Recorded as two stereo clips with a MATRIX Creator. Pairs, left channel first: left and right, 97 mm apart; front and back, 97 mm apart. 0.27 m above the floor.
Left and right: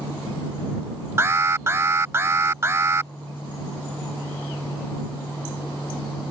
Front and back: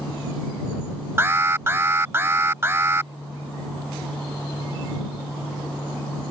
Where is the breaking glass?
I don't hear breaking glass.